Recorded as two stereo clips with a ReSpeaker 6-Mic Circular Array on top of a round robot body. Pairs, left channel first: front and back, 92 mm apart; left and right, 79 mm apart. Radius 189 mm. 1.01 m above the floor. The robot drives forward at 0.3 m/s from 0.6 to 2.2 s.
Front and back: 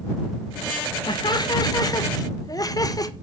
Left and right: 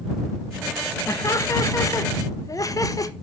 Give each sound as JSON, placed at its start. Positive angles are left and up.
{"t": 1.1, "sound": "laughter", "azimuth_deg": 40, "distance_m": 1.8}